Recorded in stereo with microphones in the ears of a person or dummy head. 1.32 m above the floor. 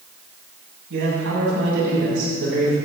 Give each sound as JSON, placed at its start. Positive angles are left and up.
{"t": 0.9, "sound": "a man speaking", "side_deg": -75, "distance_m": 8.5}